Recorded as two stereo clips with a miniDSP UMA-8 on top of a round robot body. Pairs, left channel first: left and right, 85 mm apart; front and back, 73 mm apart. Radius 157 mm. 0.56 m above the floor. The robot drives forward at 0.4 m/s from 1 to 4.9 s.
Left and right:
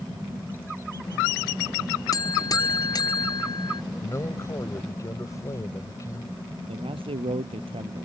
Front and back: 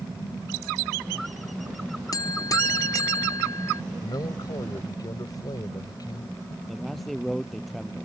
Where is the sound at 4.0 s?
35° left.